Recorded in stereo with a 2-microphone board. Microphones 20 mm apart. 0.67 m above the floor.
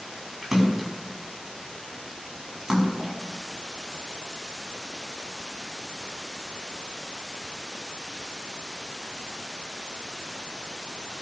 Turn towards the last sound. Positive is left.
turn(degrees=-15)  # may be behind; listen again after turning